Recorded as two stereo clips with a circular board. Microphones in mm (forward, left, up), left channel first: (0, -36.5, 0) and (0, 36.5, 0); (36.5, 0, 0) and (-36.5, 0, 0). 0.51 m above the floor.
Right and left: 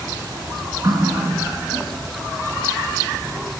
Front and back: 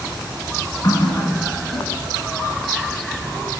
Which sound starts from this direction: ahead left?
A running tap, at 0.8 s.